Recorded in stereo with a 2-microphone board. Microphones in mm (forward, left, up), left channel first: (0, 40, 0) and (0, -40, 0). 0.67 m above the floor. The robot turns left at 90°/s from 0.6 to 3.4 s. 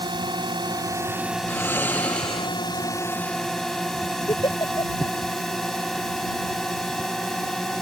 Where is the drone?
105° right; by 7.8 s 5° left.